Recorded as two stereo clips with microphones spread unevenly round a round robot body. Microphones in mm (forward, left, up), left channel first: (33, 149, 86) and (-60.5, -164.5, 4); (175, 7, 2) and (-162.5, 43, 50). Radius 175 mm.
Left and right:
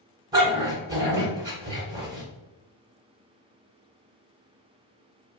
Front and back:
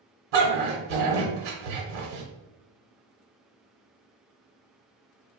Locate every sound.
0.3 s a dog barking: 175° left, 1.2 m